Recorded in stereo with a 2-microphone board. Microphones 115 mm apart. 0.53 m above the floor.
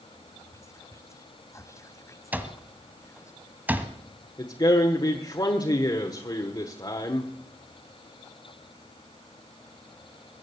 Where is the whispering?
25° left (ahead or behind), 1.0 m.